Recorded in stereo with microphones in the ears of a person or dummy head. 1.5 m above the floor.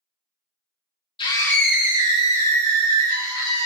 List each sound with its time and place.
1.2 s a scream: 30° left (ahead or behind), 0.7 m; by 3.6 s 60° right (ahead or behind), 1.5 m